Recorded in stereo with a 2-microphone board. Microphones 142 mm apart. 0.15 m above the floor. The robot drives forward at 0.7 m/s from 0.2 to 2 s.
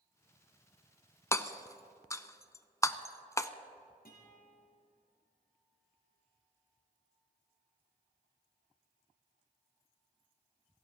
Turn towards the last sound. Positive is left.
turn(degrees=70)  # may be behind; listen again after turning